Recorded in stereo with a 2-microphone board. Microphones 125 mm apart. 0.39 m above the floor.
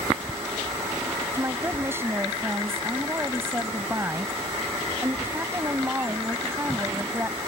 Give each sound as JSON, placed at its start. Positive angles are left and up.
{"t": 1.3, "sound": "a woman speaking", "side_deg": -20}